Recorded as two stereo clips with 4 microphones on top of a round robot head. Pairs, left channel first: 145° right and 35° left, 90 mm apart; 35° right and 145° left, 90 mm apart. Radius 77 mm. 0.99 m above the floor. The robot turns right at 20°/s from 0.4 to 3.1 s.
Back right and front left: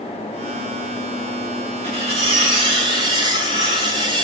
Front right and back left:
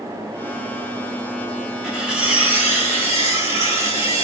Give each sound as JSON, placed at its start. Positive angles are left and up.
{"t": 1.8, "sound": "cutlery clinking", "azimuth_deg": 60, "distance_m": 1.0}